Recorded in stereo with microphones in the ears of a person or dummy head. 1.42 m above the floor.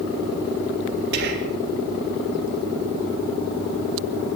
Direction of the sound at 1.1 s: 60° right (ahead or behind).